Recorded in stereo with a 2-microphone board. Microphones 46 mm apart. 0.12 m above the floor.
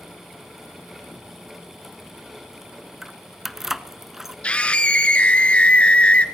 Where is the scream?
25° left (ahead or behind), 1.4 m.